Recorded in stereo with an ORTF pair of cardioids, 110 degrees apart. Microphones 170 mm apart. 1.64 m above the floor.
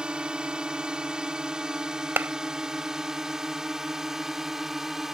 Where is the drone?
5° right; by 5.1 s straight ahead.